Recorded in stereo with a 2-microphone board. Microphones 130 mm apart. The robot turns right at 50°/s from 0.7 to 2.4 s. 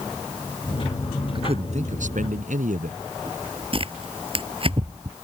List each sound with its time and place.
1.4 s a man speaking: 140° right; by 3.0 s 85° right
3.7 s tearing paper: 40° right (ahead or behind)